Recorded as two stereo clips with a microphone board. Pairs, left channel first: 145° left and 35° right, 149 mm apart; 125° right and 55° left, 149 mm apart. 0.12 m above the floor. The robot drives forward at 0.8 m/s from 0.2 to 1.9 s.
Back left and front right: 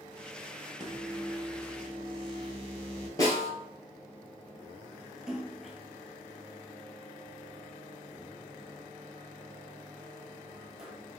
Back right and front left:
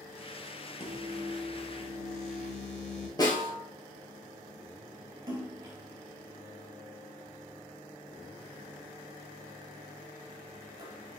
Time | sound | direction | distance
0.8 | a microwave | 85° right | 1.1 m
3.2 | a snare drum | 165° right | 1.5 m
5.3 | a splash | 45° left | 1.1 m